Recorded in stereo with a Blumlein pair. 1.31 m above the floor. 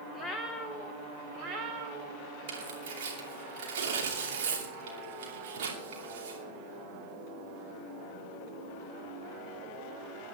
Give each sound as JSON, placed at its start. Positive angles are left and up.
{"t": 0.1, "sound": "a cat meowing", "azimuth_deg": 10, "distance_m": 1.7}
{"t": 2.5, "sound": "tearing paper", "azimuth_deg": -55, "distance_m": 2.5}